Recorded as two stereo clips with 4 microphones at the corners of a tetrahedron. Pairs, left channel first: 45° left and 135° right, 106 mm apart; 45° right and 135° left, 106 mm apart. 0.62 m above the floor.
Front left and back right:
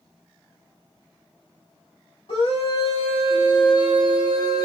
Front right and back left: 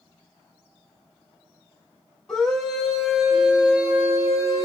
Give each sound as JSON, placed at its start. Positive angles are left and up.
{"t": 2.3, "sound": "a scream", "azimuth_deg": 40, "distance_m": 1.7}